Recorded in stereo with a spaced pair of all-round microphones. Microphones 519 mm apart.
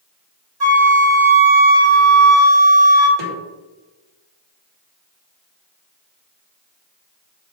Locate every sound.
0.6 s a flute: 45° right (ahead or behind), 1.7 m
3.2 s a snare drum: 55° right (ahead or behind), 2.5 m